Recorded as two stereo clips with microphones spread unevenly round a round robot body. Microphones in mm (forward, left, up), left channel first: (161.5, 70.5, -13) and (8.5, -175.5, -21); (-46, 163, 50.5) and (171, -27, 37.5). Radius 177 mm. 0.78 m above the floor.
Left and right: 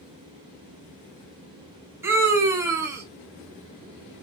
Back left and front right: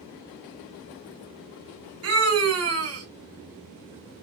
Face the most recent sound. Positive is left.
turn(degrees=-45)